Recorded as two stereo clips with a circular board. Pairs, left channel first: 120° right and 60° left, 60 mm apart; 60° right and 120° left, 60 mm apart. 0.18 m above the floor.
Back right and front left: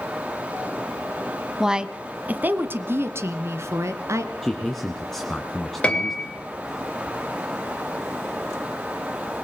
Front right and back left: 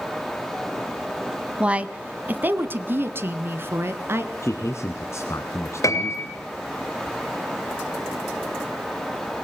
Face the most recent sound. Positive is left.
turn(degrees=-50)